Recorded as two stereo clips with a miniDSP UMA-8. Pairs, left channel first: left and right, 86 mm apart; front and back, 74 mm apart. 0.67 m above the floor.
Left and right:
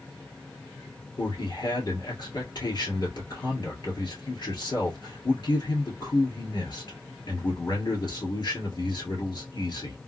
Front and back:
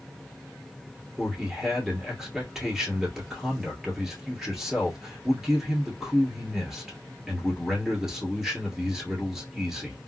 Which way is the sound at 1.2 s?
105° left.